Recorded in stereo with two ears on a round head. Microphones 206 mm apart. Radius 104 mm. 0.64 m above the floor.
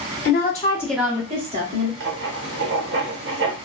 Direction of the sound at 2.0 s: 50° right (ahead or behind).